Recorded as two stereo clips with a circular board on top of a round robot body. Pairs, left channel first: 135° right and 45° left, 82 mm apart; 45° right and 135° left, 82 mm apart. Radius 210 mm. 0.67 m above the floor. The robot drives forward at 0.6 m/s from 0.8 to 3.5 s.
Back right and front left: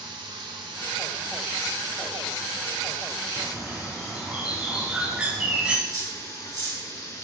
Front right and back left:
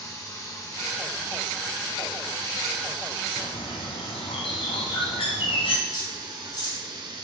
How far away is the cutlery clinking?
About 4.5 m.